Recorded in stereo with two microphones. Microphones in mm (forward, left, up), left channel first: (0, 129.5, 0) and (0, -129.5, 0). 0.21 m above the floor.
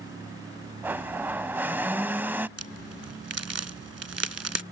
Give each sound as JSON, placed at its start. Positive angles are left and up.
{"t": 0.8, "sound": "a blender", "side_deg": -10}
{"t": 2.6, "sound": "a crack", "side_deg": -70}